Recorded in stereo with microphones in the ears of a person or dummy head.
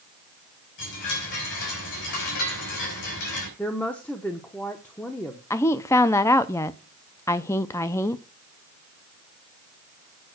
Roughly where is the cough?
I don't hear a cough.